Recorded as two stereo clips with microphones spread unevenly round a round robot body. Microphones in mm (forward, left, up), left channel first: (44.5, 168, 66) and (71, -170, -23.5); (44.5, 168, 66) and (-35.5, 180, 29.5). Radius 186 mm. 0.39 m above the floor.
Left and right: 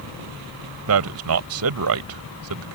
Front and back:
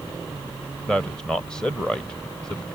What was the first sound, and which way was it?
A man speaking, 105° right.